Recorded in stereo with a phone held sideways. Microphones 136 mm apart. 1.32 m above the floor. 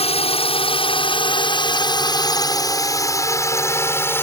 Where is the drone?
45° left (ahead or behind); by 4.2 s 15° left (ahead or behind).